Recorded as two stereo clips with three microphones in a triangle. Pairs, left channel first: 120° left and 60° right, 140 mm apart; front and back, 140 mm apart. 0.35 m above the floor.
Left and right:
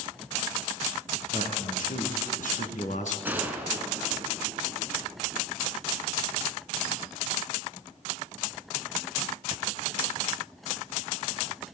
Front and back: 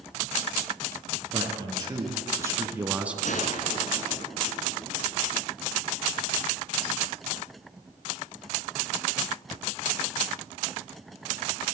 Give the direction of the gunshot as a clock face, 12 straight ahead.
11 o'clock.